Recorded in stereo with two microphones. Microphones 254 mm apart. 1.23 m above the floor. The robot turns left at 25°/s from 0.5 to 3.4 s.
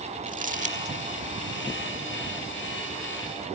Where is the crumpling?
30° right (ahead or behind); by 0.9 s 25° right (ahead or behind).